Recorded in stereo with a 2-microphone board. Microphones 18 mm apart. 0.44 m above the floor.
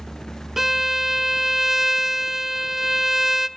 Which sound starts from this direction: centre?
A violin, at 0.6 s.